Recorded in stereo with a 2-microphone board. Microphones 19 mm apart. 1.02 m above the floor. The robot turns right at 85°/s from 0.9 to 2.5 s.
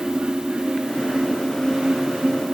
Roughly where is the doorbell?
I don't hear a doorbell.